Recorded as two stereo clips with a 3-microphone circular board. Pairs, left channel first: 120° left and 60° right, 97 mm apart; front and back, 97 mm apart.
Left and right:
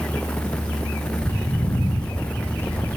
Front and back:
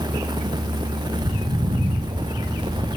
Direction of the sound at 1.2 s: Straight behind.